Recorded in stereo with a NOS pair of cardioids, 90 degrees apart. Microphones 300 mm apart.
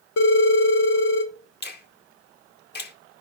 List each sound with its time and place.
0.2 s a phone ringing: 65° left, 2 m
1.6 s a finger snap: 35° left, 1.6 m